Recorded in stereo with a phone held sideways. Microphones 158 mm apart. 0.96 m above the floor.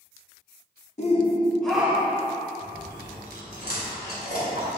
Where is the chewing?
85° left, 3 m.